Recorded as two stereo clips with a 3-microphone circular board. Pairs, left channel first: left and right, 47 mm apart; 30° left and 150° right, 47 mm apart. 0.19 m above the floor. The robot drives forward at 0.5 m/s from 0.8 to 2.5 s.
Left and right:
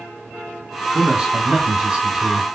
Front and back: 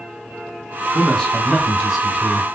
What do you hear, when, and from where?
0.9 s a man speaking: 35° right, 1.2 m; by 2.5 s 110° right, 1.1 m